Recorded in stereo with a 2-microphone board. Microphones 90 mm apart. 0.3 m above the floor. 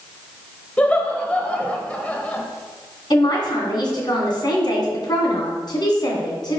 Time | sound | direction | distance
0.8 | laughter | 15° left (ahead or behind) | 1.0 m
3.1 | a man speaking | 55° left (ahead or behind) | 2.5 m